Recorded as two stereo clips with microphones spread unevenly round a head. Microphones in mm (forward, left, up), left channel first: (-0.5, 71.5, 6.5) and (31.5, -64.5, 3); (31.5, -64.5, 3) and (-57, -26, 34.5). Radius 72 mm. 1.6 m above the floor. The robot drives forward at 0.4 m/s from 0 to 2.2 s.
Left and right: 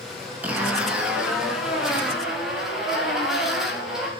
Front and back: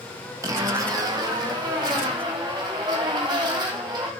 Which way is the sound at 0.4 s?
155° right.